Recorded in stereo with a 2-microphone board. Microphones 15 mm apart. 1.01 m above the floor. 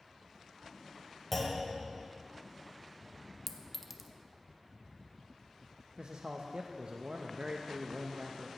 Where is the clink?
15° right (ahead or behind), 0.7 m.